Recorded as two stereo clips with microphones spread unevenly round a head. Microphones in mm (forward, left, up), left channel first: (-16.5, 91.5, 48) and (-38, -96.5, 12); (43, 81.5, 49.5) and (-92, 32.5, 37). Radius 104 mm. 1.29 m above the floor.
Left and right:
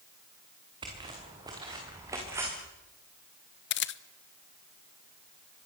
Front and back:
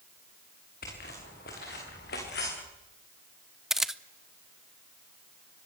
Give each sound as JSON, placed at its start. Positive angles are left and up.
{"t": 0.8, "sound": "footsteps", "azimuth_deg": -25, "distance_m": 7.0}
{"t": 3.7, "sound": "a camera shutter", "azimuth_deg": 115, "distance_m": 1.0}